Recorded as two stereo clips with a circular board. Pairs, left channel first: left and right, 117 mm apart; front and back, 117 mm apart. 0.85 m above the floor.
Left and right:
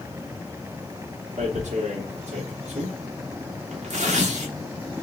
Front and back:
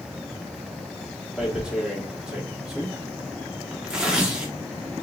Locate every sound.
1.4 s tearing paper: 95° right, 1.0 m